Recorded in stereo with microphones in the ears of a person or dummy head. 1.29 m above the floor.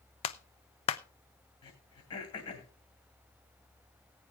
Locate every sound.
0.2 s a clap: 40° left (ahead or behind), 0.6 m
1.6 s throat clearing: 40° left (ahead or behind), 2.5 m